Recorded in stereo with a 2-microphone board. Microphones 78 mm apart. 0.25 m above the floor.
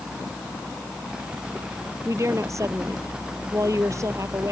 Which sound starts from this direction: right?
A woman speaking, at 2.0 s.